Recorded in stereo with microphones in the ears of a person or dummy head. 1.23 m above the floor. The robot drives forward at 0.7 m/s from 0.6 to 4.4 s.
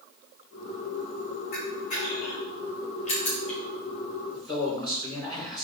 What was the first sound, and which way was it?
A camera shutter, 50° left (ahead or behind).